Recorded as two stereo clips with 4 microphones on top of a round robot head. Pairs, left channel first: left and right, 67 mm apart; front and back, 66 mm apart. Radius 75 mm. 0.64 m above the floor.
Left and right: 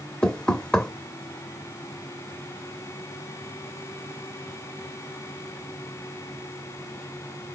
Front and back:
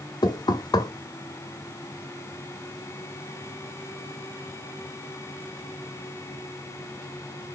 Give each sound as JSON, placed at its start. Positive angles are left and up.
{"t": 0.2, "sound": "knocking", "azimuth_deg": 15, "distance_m": 1.3}